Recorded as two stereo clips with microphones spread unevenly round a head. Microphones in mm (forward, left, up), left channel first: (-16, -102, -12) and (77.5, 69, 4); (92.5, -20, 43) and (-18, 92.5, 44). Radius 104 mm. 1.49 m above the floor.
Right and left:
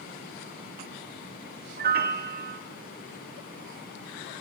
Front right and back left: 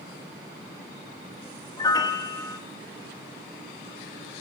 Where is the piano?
20° left, 2.5 m.